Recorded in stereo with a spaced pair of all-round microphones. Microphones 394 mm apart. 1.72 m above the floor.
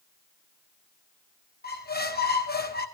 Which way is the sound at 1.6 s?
25° left (ahead or behind).